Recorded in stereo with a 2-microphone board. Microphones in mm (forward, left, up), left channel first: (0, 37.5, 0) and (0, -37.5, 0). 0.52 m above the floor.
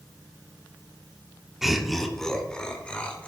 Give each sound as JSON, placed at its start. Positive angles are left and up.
{"t": 1.6, "sound": "laughter", "side_deg": -5, "distance_m": 1.2}